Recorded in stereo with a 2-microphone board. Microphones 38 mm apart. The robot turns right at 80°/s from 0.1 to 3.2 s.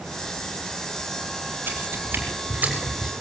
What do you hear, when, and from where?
1.7 s footsteps: 55° right (ahead or behind), 5 m; by 3.1 s 15° right (ahead or behind), 5 m